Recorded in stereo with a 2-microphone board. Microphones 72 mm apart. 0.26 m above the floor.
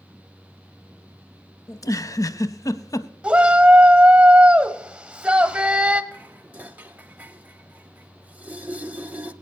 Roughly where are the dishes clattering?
Right.